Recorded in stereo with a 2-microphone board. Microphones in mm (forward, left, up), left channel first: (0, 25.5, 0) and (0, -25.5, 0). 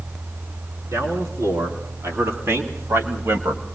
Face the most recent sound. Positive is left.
turn(degrees=-65)  # may be behind; listen again after turning